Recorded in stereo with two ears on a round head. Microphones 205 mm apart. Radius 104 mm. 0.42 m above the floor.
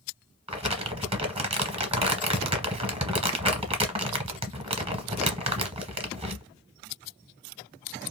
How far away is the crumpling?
About 0.9 m.